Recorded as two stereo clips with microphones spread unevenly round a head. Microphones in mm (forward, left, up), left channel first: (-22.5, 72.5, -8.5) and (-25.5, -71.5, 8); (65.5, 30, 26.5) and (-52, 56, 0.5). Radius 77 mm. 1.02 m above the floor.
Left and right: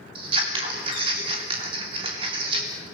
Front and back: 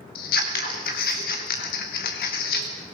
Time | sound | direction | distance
0.1 | scissors | 30° right | 3 m